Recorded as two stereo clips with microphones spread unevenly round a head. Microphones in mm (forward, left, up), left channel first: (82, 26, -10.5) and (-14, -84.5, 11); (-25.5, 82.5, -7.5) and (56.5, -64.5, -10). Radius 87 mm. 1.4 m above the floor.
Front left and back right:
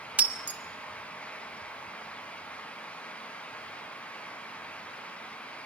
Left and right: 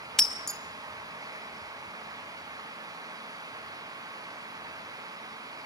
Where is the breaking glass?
165° right, 0.7 m.